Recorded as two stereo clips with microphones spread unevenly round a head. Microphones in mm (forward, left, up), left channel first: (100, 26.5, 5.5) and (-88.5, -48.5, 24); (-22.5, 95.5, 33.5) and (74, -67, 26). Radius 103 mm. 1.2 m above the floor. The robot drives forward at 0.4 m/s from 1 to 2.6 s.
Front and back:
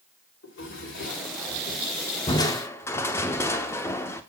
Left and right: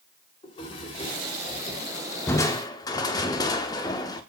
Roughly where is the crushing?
Left.